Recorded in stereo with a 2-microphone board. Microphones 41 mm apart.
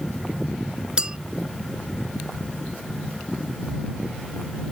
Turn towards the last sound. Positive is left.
turn(degrees=-25)  # may be behind; listen again after turning